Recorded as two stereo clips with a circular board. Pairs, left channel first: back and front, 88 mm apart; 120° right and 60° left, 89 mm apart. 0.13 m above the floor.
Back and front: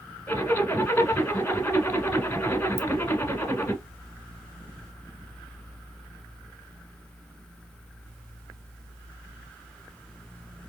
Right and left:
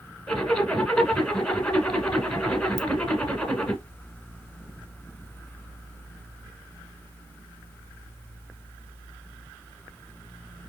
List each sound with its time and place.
0.3 s a zipper: 170° left, 1.1 m
2.8 s a ringtone: 50° left, 1.3 m